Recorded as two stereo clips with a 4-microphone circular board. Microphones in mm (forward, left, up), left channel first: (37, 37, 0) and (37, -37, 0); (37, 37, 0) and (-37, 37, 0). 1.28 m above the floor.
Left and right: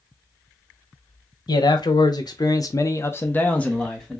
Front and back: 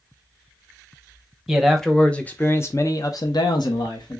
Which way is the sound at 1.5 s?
90° left.